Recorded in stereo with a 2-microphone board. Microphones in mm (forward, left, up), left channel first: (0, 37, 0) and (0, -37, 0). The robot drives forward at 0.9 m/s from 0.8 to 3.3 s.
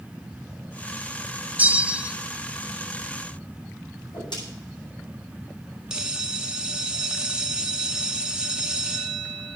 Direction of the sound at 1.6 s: 20° right (ahead or behind).